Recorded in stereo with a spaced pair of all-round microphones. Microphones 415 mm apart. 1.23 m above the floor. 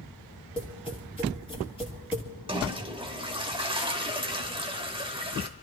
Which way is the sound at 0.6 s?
10° left (ahead or behind).